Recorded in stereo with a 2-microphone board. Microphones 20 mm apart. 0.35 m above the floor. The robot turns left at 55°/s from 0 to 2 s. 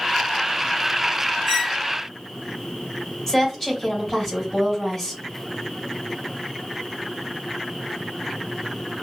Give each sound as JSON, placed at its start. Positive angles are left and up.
{"t": 1.5, "sound": "a squeak", "side_deg": -15, "distance_m": 1.5}
{"t": 3.3, "sound": "a woman speaking", "side_deg": 20, "distance_m": 1.8}